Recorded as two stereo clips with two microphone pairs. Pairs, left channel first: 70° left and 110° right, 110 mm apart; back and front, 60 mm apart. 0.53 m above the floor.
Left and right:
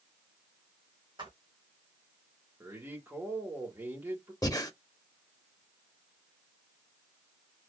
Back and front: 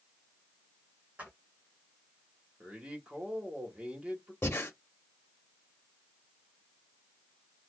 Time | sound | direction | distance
1.2 | footsteps | 70° right | 1.7 m
2.6 | a man speaking | 55° right | 1.5 m
4.4 | breathing | 130° left | 0.7 m